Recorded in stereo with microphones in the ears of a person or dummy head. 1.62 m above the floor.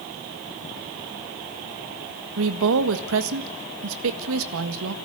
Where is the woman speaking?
75° right (ahead or behind), 1.8 m.